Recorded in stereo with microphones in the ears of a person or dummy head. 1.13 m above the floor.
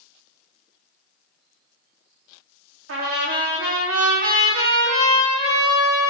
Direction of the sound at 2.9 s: 80° right.